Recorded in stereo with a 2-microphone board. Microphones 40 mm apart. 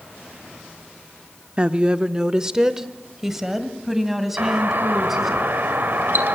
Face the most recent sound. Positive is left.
turn(degrees=-60)  # may be behind; listen again after turning